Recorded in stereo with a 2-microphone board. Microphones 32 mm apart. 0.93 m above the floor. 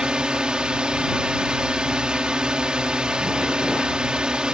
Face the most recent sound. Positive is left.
turn(degrees=-30)  # may be behind; listen again after turning